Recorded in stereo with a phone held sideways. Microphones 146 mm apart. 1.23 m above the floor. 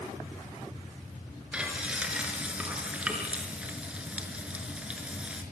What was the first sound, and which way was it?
Frying, 10° right (ahead or behind).